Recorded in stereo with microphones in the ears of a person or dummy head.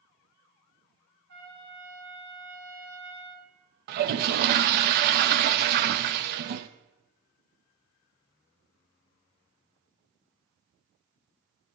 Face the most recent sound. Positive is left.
turn(degrees=-55)  # may be behind; listen again after turning